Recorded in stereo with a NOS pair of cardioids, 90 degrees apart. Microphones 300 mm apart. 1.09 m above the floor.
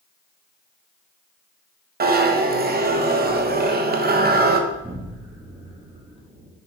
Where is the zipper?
35° right, 1.0 m.